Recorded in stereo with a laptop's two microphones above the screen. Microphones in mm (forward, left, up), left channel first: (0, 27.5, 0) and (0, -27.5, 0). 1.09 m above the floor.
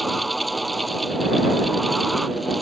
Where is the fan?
Centre (ahead or behind).